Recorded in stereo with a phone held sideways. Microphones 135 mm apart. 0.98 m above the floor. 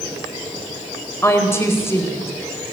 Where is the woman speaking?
20° left (ahead or behind), 5 m.